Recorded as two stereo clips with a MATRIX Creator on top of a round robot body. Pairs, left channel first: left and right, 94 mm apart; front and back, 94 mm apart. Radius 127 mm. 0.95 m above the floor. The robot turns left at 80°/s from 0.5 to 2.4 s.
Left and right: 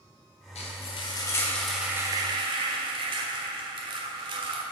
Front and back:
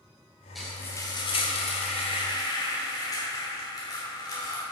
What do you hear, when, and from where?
0.6 s frying: 90° left, 1.1 m; by 4.6 s 55° right, 1.1 m